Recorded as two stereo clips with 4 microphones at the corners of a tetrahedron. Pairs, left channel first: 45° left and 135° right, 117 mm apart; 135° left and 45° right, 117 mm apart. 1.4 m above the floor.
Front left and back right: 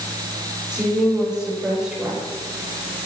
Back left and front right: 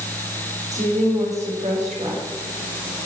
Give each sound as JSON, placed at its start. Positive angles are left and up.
{"t": 0.7, "sound": "a woman speaking", "azimuth_deg": -50, "distance_m": 6.0}